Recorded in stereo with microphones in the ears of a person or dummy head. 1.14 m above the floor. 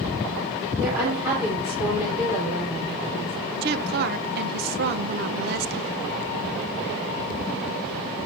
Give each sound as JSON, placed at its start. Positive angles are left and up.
{"t": 0.8, "sound": "a woman speaking", "side_deg": -10, "distance_m": 3.5}
{"t": 3.6, "sound": "a woman speaking", "side_deg": -50, "distance_m": 0.9}